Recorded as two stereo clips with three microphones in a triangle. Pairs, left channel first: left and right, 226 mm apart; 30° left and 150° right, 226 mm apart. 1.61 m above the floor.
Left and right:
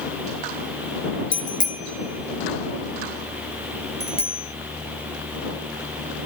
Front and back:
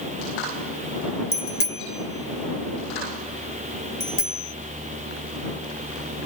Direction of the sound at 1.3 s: 40° left.